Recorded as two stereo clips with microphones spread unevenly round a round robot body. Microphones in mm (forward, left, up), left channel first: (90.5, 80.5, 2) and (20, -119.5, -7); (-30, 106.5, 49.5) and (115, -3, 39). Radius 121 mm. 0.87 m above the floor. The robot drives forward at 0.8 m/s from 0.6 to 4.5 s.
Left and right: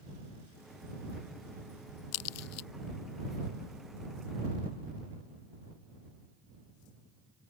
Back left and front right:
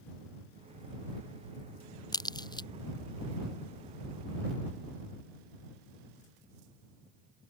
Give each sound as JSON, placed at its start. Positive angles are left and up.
{"t": 2.1, "sound": "a crack", "azimuth_deg": 75}